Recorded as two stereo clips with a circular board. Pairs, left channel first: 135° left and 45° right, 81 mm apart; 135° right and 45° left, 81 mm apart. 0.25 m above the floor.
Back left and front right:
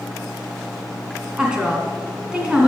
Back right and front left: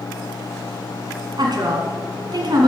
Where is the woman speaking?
35° left, 2.0 m.